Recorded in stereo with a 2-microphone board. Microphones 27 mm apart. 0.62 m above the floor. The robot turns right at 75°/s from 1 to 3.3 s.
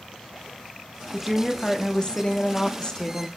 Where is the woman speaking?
15° right, 0.8 m; by 3.3 s 145° left, 0.8 m.